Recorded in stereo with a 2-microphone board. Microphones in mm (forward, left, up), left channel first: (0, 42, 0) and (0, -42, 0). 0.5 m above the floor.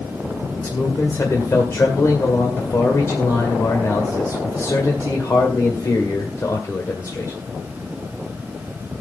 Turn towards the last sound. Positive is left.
turn(degrees=35)  # may be behind; listen again after turning